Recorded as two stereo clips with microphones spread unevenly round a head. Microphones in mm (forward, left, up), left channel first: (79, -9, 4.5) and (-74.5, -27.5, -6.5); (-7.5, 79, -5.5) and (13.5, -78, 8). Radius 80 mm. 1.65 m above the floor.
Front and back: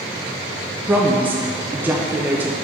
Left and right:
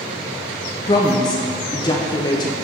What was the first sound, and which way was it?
A woman speaking, 115° left.